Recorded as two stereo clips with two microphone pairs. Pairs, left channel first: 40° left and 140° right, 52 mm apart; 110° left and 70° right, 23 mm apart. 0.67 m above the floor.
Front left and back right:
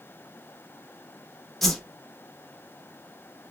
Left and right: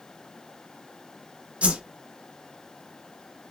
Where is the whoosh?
40° right, 0.7 m.